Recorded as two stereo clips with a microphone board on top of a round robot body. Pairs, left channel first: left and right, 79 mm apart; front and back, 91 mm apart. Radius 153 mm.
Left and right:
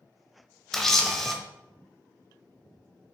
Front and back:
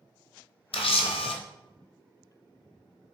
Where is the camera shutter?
5° left, 1.0 m.